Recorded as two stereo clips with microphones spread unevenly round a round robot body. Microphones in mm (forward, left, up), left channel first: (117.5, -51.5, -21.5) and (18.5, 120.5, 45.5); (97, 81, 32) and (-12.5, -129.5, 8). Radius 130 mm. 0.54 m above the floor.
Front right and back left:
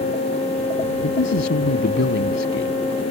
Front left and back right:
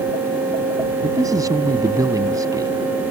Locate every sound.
1.0 s a man speaking: 40° right